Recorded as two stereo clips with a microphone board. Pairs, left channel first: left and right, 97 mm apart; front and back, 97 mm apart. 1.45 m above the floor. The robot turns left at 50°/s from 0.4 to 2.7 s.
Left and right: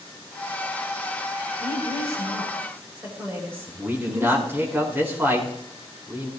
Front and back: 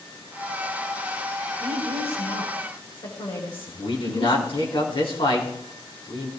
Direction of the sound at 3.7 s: 25° right.